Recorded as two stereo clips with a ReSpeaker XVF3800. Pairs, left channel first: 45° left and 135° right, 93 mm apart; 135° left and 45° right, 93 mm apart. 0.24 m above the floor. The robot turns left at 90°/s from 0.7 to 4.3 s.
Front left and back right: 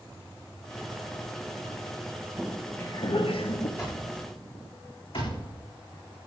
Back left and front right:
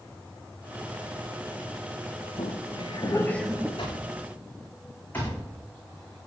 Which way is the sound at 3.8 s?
110° left.